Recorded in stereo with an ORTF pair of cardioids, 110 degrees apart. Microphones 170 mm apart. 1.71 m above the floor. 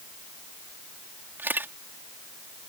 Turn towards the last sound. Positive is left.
turn(degrees=-10)